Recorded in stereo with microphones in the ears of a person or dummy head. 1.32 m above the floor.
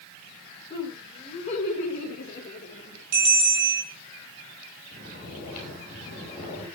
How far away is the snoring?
About 8 m.